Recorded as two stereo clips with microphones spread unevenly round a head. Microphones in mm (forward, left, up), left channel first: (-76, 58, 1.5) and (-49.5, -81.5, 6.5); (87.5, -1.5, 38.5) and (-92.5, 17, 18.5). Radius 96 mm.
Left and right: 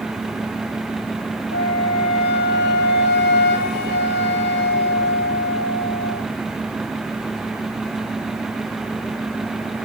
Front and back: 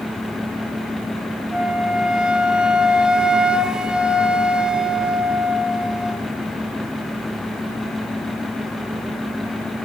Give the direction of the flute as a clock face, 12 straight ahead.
9 o'clock.